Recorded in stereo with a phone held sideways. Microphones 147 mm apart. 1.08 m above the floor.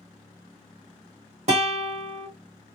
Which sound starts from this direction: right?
A guitar, at 1.5 s.